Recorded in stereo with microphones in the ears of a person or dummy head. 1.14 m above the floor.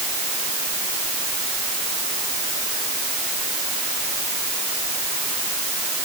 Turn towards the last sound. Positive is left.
No sound to turn to.